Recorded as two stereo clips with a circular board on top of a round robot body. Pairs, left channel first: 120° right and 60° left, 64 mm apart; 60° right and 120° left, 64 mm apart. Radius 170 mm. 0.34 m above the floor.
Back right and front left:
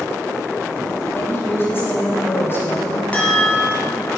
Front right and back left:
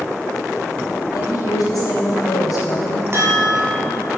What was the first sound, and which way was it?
A woman speaking, 70° right.